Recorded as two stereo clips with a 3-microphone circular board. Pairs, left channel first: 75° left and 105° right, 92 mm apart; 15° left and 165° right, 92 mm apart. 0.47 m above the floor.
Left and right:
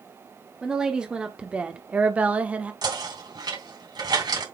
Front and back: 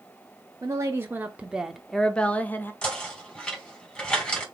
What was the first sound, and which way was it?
A woman speaking, straight behind.